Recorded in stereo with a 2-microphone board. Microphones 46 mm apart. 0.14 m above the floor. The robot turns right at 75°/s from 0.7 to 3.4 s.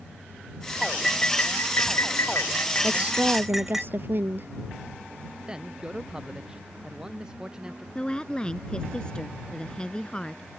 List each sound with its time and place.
0.8 s cutlery clinking: 10° right; by 3.8 s 175° right
2.8 s a woman speaking: 165° right; by 4.5 s 120° right
5.5 s a man speaking: 15° right (ahead or behind)
8.0 s a woman speaking: 20° left (ahead or behind)